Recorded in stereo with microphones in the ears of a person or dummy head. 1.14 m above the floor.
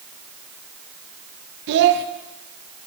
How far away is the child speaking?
About 0.5 m.